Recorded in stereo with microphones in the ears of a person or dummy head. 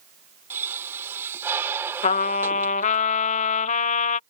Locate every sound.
0.5 s a pop: 10° right (ahead or behind)
2.0 s a trumpet: 35° left (ahead or behind)